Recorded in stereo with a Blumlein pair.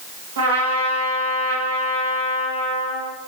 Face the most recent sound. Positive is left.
turn(degrees=-65)